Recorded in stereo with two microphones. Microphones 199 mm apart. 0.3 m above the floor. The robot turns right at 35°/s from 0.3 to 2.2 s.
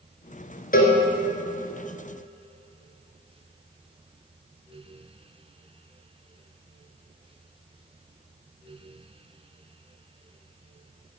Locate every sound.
0.7 s a cowbell: 50° left (ahead or behind), 1.3 m; by 1.0 s 55° left (ahead or behind), 1.3 m